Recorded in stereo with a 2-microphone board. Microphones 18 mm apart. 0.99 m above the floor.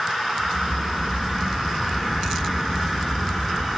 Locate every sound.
0.4 s a crack: 75° right (ahead or behind), 2.0 m